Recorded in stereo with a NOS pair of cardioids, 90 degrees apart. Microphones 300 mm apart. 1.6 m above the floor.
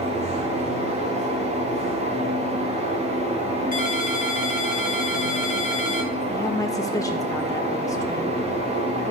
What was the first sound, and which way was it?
A fan, 20° right.